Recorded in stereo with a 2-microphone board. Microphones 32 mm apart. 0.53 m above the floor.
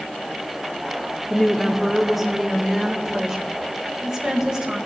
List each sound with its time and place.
1.3 s a woman speaking: 10° left (ahead or behind), 0.8 m; by 4.8 s 25° right (ahead or behind), 2 m